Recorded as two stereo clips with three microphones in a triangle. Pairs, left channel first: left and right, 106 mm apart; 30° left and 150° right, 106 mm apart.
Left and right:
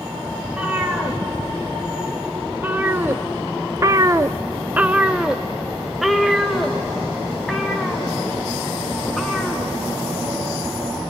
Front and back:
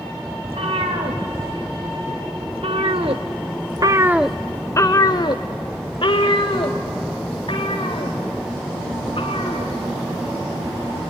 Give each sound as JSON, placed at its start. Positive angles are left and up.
{"t": 0.4, "sound": "a cat meowing", "azimuth_deg": -170, "distance_m": 3.0}